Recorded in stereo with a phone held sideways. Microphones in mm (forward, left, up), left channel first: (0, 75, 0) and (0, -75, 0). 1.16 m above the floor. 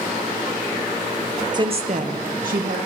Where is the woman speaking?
30° right (ahead or behind), 0.8 m; by 2.8 s 65° right (ahead or behind), 1.3 m.